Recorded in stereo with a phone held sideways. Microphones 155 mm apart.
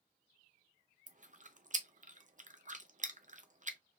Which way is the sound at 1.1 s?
55° right (ahead or behind).